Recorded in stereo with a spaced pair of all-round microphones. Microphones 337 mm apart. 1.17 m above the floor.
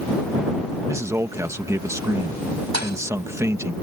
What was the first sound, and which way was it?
A man speaking, 10° right (ahead or behind).